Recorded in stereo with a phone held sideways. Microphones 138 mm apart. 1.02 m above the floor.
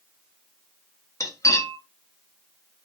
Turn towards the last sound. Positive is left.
turn(degrees=25)  # may be behind; listen again after turning